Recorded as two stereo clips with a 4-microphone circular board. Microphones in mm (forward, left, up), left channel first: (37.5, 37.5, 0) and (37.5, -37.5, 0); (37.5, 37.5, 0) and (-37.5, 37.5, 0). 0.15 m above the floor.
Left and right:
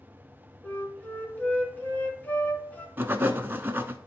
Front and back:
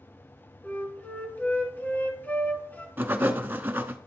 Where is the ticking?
I don't hear ticking.